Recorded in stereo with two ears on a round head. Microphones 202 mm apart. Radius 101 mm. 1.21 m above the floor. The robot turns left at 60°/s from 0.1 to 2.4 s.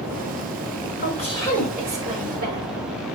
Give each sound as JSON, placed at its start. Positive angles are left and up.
{"t": 1.0, "sound": "a woman speaking", "azimuth_deg": 40, "distance_m": 5.5}